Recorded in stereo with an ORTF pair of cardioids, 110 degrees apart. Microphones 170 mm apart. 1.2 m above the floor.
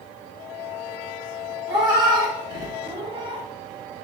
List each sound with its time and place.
1.7 s a cat meowing: 25° right, 1.8 m; by 3.5 s 40° right, 0.7 m